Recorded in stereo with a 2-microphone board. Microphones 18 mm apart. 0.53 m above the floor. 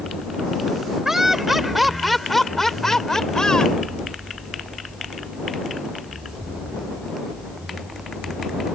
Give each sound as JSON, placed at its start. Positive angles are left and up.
{"t": 1.1, "sound": "laughter", "side_deg": -25}